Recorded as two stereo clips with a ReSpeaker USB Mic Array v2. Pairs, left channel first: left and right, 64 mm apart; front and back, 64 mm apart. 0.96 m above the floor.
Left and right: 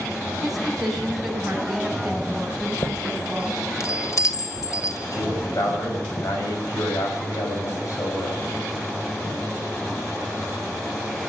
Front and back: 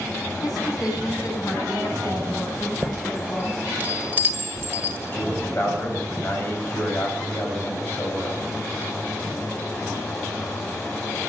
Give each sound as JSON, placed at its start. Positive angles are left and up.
{"t": 0.4, "sound": "a woman speaking", "azimuth_deg": -5, "distance_m": 6.5}
{"t": 2.6, "sound": "a chime", "azimuth_deg": 120, "distance_m": 1.8}
{"t": 5.1, "sound": "a man speaking", "azimuth_deg": 60, "distance_m": 6.0}